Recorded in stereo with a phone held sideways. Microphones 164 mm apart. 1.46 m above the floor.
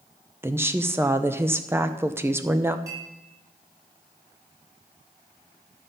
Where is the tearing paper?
No tearing paper in this recording.